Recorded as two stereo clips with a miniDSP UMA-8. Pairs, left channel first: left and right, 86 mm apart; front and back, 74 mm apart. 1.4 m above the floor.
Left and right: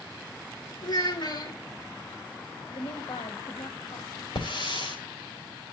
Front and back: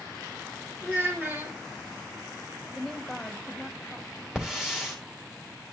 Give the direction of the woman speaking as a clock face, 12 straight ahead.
9 o'clock.